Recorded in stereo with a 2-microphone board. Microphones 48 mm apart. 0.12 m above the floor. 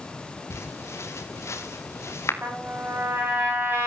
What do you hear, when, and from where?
0.5 s footsteps: 75° left (ahead or behind), 3.5 m
2.4 s a trumpet: 45° right (ahead or behind), 8 m